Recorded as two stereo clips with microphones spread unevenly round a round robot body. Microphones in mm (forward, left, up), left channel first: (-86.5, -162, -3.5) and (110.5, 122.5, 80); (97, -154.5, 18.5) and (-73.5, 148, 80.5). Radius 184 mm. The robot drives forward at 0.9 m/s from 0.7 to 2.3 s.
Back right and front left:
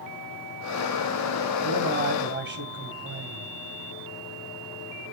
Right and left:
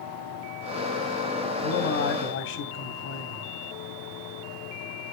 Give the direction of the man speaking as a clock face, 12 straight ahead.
12 o'clock.